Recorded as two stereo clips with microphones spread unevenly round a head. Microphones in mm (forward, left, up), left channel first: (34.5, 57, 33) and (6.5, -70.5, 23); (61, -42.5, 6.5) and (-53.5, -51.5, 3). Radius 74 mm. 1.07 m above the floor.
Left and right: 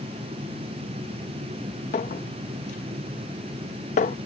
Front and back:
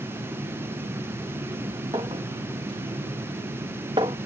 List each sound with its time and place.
1.9 s a clink: 120° left